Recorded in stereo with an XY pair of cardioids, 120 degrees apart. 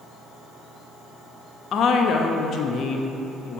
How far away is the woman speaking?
About 0.6 m.